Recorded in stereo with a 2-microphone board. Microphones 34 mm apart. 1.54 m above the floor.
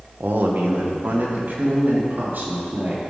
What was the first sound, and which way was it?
A man speaking, 85° right.